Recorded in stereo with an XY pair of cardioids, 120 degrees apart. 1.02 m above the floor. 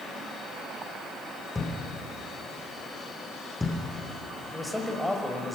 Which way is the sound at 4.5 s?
5° left.